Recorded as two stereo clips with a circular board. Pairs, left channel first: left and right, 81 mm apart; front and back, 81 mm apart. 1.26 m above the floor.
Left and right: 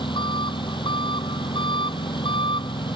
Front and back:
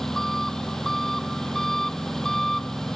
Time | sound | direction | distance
0.0 | an engine running | 85° left | ?